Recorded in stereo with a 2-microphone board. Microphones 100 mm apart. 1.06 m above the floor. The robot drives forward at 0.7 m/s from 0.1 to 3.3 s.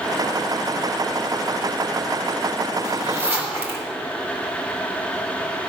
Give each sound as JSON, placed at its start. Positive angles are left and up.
{"t": 2.8, "sound": "a zipper", "side_deg": -25, "distance_m": 2.5}